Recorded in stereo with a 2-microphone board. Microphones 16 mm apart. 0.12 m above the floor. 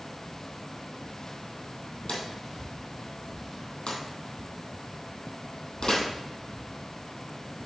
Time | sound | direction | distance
2.1 | a drawer | 60° left (ahead or behind) | 2.5 m